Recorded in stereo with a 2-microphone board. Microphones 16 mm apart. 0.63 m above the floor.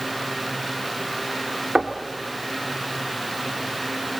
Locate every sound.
1.8 s knocking: 55° right (ahead or behind), 1.6 m